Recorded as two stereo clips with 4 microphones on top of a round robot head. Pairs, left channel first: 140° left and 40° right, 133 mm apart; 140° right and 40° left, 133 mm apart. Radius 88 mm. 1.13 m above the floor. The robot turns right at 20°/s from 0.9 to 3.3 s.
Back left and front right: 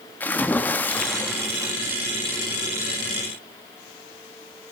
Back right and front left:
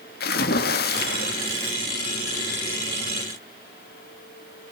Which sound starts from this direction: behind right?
A splash, at 0.2 s.